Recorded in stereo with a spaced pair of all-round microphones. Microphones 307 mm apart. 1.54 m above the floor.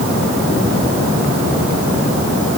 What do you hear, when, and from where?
Only background noise.